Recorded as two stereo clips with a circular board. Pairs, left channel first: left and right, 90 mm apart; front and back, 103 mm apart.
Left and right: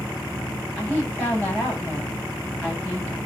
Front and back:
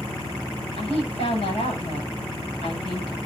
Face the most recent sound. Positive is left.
turn(degrees=25)